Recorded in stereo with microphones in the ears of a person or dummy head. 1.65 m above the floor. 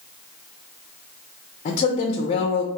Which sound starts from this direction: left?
A woman speaking, at 1.6 s.